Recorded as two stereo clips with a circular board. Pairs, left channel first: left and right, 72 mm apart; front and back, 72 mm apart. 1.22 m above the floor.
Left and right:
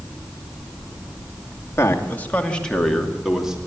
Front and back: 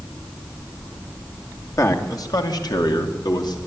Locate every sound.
1.8 s a man speaking: 40° left, 2.5 m; by 3.6 s 10° right, 3 m